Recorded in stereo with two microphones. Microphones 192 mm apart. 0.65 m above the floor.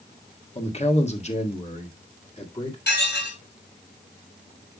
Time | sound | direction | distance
0.6 | a man speaking | 35° left (ahead or behind) | 1.4 m
2.9 | dishes clattering | 70° left (ahead or behind) | 6 m